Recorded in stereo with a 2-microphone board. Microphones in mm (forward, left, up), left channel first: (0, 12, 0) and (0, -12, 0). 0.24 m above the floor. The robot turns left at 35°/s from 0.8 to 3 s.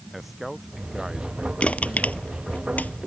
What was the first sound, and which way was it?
A man speaking, 5° right.